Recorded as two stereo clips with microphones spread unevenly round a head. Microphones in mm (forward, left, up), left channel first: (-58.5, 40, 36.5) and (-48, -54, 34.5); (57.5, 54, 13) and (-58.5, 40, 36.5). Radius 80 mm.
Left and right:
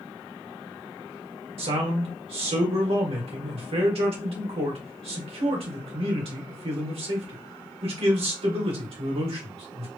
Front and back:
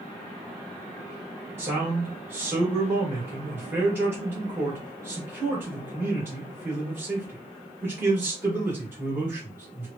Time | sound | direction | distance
1.6 | a man speaking | 95° right | 1.4 m